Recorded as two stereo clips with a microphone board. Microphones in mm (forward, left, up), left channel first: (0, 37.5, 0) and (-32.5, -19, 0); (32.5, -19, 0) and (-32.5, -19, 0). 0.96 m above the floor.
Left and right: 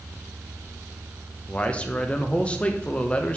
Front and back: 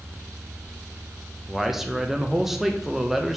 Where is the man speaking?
105° left, 0.7 m.